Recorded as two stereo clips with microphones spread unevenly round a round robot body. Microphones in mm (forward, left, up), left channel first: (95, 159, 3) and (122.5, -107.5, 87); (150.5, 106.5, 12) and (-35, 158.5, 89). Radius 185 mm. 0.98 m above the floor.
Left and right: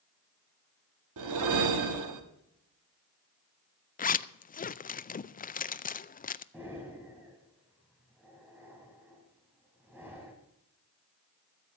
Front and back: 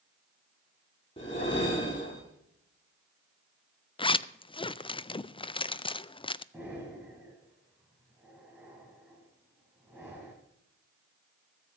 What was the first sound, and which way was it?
A whoosh, 95° right.